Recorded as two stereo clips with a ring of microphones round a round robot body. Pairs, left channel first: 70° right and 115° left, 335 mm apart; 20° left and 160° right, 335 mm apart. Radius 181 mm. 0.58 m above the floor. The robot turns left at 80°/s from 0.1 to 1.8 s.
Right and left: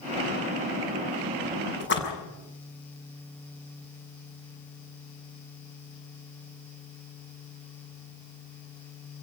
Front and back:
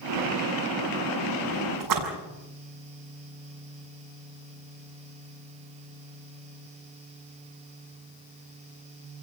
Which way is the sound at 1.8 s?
125° right.